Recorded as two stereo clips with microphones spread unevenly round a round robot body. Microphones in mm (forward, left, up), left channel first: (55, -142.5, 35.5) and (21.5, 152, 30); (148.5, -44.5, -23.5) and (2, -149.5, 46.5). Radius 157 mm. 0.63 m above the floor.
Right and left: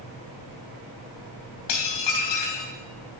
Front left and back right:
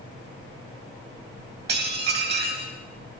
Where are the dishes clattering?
120° right, 2.5 m.